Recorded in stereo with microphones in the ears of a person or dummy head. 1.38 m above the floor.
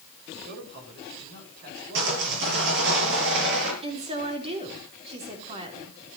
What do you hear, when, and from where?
0.5 s a man speaking: 60° right (ahead or behind), 7 m; by 3.0 s 45° right (ahead or behind), 6.5 m
1.9 s sawing: 65° right (ahead or behind), 6.5 m
3.8 s a woman speaking: 30° right (ahead or behind), 3.5 m